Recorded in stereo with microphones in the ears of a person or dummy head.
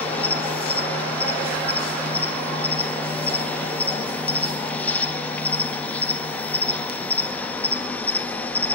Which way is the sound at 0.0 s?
10° left (ahead or behind).